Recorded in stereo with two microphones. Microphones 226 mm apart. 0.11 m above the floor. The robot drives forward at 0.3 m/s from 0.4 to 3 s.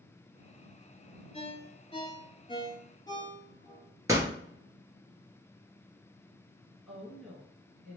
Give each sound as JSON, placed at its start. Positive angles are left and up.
{"t": 1.3, "sound": "a ringtone", "side_deg": 30, "distance_m": 0.6}
{"t": 4.1, "sound": "a door slam", "side_deg": -15, "distance_m": 1.4}
{"t": 6.9, "sound": "a woman speaking", "side_deg": 0, "distance_m": 1.5}